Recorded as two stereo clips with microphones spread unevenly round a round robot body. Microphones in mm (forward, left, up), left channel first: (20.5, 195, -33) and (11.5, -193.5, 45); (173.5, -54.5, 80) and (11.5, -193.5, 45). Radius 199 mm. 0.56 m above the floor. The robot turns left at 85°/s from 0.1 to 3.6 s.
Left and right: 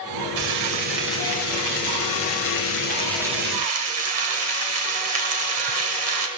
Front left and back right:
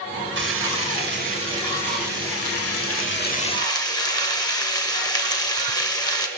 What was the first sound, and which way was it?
Frying, 120° right.